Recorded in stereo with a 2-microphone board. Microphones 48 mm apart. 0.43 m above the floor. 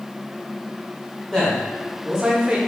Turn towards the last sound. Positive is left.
turn(degrees=-20)  # may be behind; listen again after turning